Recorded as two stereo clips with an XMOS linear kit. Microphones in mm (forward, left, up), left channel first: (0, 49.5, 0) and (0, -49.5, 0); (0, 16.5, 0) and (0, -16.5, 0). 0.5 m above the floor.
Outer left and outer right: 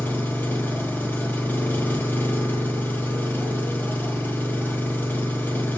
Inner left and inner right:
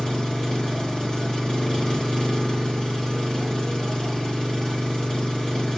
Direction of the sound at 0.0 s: 20° left (ahead or behind).